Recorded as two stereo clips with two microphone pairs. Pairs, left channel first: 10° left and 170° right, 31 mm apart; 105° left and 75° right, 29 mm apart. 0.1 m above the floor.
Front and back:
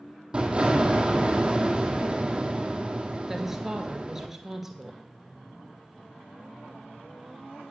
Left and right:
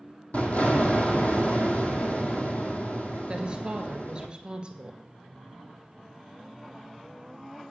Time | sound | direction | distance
0.3 | an explosion | 135° left | 1.7 m
3.3 | a woman speaking | 95° right | 1.8 m